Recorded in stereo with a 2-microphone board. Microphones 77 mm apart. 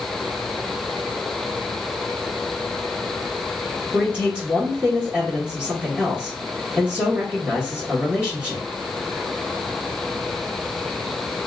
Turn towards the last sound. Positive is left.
turn(degrees=-20)  # may be behind; listen again after turning